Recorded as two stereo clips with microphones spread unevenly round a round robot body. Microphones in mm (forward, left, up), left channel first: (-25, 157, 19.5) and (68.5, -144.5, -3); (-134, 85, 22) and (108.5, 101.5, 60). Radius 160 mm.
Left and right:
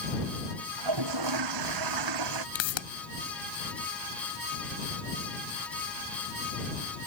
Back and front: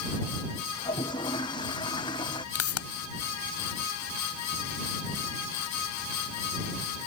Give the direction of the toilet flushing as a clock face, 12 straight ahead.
3 o'clock.